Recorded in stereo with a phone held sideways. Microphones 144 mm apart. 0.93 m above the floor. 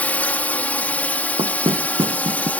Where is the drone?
10° left (ahead or behind).